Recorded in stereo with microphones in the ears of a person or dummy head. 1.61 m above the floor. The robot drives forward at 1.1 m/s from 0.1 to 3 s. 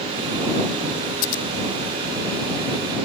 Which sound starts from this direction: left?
Scissors, at 1.2 s.